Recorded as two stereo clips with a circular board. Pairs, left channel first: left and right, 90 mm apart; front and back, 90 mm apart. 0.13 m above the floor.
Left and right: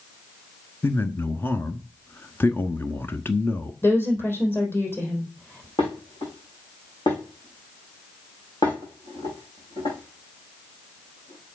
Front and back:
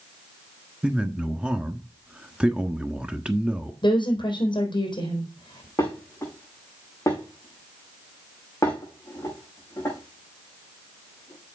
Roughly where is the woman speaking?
Ahead left.